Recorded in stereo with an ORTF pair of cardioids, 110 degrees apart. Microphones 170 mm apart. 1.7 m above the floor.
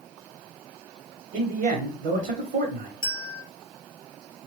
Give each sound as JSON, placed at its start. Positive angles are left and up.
{"t": 1.3, "sound": "a man speaking", "azimuth_deg": -65, "distance_m": 1.1}
{"t": 3.0, "sound": "a bell", "azimuth_deg": 30, "distance_m": 0.6}